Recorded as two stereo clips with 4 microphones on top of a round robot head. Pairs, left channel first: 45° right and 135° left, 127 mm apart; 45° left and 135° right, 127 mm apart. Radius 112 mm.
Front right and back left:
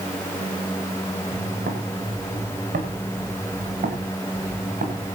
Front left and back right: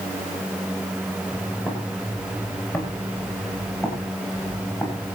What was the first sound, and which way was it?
Footsteps, 120° left.